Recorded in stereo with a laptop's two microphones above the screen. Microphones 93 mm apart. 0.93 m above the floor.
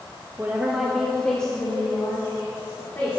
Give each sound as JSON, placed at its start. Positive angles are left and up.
{"t": 0.4, "sound": "a woman speaking", "side_deg": -30, "distance_m": 1.1}